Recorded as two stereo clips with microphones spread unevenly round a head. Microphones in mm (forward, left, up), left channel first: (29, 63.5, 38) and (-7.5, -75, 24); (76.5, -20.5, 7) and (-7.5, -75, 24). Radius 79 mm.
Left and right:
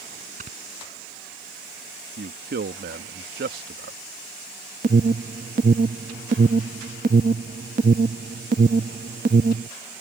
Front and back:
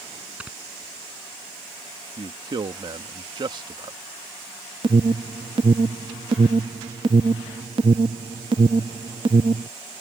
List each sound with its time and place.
0.4 s snoring: 70° right
2.2 s a man speaking: 105° right
4.8 s an alarm: 140° right